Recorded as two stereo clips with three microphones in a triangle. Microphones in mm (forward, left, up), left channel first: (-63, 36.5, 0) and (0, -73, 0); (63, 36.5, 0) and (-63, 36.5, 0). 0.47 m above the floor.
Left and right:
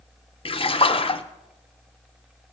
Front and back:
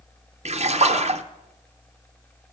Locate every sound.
0.5 s a splash: 160° left, 0.5 m